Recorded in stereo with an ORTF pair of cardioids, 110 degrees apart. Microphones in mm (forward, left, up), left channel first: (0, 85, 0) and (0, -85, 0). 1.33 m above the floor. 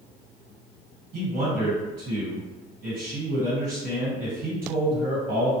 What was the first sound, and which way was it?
A man speaking, 55° right.